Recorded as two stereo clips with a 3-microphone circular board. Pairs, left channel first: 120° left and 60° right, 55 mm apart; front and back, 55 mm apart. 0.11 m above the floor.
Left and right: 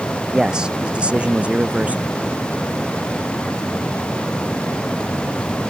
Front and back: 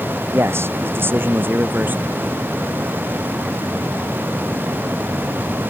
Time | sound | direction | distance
0.3 | a man speaking | 140° right | ?